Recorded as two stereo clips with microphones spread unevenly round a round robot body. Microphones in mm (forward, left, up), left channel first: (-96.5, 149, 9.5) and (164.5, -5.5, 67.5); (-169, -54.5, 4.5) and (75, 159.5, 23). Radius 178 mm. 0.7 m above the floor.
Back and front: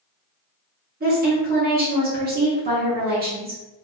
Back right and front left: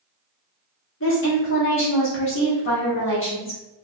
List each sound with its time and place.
1.0 s a woman speaking: 95° right, 1.0 m